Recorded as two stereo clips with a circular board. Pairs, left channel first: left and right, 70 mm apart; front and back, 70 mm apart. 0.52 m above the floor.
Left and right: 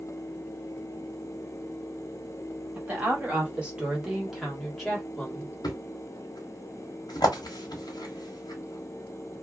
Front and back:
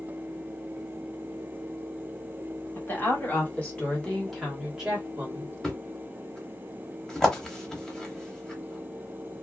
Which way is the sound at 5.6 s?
80° left.